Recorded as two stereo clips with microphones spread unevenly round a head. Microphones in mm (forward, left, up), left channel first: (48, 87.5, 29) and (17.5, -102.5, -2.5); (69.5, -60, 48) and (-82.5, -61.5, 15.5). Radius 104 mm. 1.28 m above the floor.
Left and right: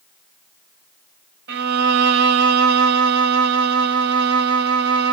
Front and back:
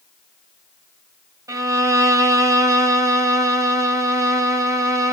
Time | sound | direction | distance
1.5 | a violin | 105° right | 0.6 m